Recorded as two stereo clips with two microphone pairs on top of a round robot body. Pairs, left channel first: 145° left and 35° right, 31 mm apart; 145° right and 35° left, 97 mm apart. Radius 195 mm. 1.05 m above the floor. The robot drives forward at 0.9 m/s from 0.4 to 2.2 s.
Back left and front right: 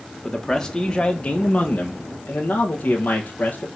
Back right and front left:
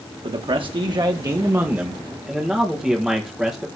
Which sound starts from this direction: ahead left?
A man speaking, at 0.2 s.